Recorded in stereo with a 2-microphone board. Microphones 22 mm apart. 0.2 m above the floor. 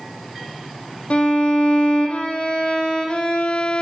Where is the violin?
70° left (ahead or behind), 1.4 m.